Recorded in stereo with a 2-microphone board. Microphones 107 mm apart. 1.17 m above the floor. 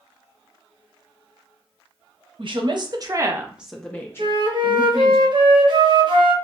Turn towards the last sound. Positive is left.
turn(degrees=-45)  # may be behind; listen again after turning